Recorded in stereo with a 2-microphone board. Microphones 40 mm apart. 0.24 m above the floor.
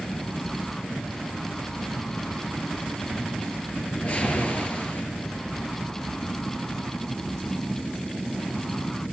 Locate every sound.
3.8 s a whoosh: 35° left (ahead or behind), 4.5 m